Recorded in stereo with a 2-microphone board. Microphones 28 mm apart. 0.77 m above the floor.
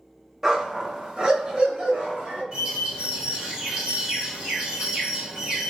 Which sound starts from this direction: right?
A bird, at 2.5 s.